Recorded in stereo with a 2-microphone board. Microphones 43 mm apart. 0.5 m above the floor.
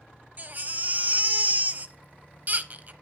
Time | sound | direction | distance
0.4 | a baby crying | 40° right (ahead or behind) | 0.8 m